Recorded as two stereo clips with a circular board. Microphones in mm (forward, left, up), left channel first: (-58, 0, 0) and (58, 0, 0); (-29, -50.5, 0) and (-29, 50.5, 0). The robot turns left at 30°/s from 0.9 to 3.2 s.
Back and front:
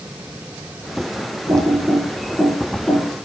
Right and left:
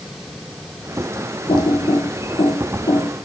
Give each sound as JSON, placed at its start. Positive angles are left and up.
{"t": 1.5, "sound": "typing on a keyboard", "azimuth_deg": -55, "distance_m": 6.5}